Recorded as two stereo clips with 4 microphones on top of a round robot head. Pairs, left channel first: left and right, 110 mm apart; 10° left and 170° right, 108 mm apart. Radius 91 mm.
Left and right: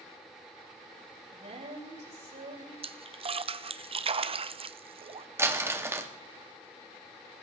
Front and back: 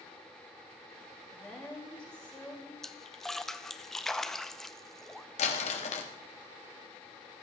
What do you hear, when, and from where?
1.3 s a woman speaking: 70° right, 6 m
2.8 s a splash: 75° right, 0.7 m
5.4 s crumpling: 20° right, 1.7 m